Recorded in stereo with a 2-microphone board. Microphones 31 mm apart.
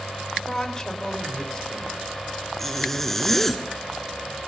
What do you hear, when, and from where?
0.3 s a woman speaking: 25° left (ahead or behind), 3.5 m
2.6 s a zipper: 5° left (ahead or behind), 1.7 m